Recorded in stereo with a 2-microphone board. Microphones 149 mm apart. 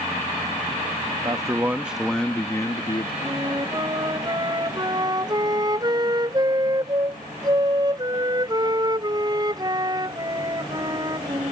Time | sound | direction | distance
1.2 | a man speaking | 25° right (ahead or behind) | ?
3.2 | a flute | 30° right (ahead or behind) | ?